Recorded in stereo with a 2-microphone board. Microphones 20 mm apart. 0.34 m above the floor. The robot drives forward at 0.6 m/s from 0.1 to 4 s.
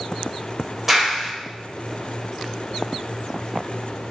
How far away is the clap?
About 1.2 m.